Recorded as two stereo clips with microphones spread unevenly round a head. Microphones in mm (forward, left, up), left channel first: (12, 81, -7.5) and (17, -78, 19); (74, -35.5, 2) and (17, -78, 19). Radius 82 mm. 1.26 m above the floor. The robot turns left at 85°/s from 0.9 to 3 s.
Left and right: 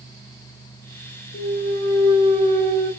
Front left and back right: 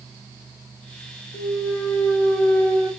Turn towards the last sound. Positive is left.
turn(degrees=-95)